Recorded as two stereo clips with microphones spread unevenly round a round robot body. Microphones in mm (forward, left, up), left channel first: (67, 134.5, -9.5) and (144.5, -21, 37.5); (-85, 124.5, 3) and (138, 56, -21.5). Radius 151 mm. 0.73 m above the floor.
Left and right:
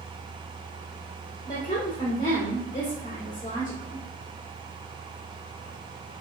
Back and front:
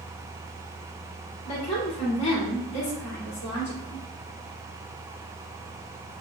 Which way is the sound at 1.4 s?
175° left.